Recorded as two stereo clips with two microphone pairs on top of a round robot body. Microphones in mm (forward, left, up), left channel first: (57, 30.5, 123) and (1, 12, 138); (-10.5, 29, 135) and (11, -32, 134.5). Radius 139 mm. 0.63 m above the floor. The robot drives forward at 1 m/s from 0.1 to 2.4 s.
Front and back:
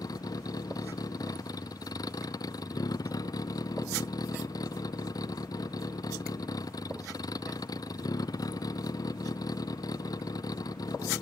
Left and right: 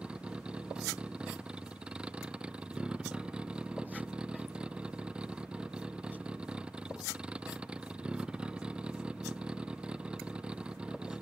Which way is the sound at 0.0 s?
5° left.